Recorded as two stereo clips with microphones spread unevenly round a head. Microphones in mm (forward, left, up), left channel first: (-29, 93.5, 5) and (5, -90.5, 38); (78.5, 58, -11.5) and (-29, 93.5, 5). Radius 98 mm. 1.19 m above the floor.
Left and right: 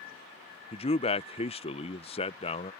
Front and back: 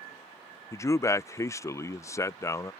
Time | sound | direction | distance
0.7 | a man speaking | 45° left | ?